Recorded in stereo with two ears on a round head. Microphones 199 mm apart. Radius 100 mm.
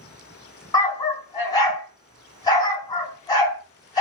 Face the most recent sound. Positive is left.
turn(degrees=15)  # may be behind; listen again after turning